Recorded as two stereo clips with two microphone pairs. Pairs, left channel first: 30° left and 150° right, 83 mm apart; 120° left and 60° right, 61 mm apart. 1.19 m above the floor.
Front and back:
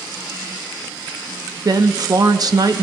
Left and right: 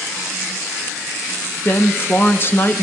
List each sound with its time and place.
1.6 s a woman speaking: 175° left, 0.7 m